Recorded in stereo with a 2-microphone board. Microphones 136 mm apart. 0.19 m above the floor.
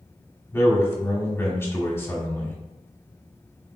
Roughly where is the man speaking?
Centre.